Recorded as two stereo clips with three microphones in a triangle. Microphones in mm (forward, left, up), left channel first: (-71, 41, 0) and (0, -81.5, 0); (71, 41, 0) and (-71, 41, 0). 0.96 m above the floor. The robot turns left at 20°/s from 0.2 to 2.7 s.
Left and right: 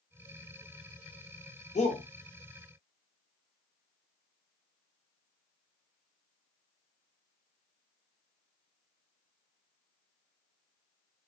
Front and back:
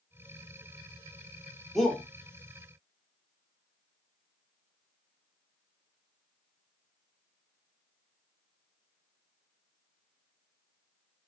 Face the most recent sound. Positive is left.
turn(degrees=70)